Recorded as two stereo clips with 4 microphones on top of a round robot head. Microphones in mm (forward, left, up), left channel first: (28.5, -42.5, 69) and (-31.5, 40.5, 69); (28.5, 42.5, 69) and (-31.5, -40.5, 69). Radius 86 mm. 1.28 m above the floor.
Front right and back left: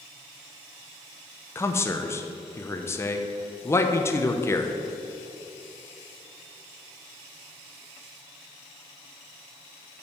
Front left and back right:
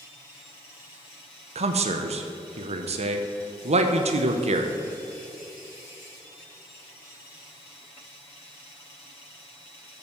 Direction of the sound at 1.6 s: 120° right.